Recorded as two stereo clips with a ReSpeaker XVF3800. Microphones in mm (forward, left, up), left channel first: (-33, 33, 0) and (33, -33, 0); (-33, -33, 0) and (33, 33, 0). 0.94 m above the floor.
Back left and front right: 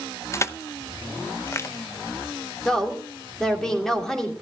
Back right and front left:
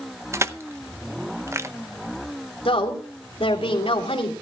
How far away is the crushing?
About 0.6 m.